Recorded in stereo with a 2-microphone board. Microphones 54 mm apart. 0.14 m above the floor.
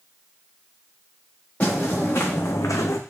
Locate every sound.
1.6 s footsteps: 30° left (ahead or behind), 1.7 m; by 3.0 s 65° left (ahead or behind), 0.6 m